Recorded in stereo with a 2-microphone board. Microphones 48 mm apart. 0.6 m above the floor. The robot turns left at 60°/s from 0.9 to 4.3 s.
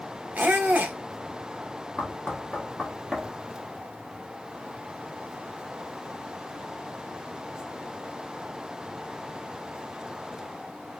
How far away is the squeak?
About 0.6 m.